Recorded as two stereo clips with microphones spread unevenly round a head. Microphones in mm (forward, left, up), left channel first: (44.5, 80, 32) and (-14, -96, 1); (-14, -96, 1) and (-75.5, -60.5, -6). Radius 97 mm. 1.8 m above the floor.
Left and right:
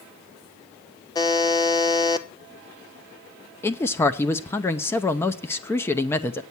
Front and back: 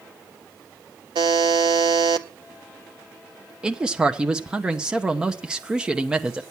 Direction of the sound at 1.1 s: 140° left.